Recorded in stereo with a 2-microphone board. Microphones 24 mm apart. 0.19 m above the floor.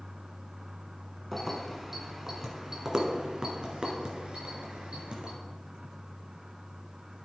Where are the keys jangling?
Centre (ahead or behind), 1.6 m; by 5.3 s 60° right (ahead or behind), 2.5 m.